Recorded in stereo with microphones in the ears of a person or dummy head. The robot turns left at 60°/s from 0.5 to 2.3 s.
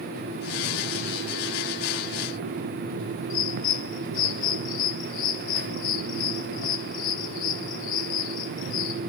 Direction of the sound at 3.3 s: 45° left (ahead or behind).